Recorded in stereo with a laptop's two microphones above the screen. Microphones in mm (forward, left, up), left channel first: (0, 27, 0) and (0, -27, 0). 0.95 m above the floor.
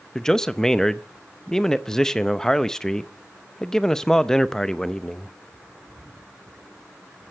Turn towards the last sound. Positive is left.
turn(degrees=10)  # may be behind; listen again after turning